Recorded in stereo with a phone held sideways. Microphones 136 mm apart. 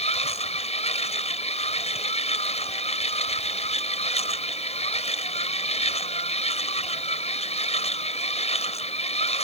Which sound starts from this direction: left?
A machine running, at 0.0 s.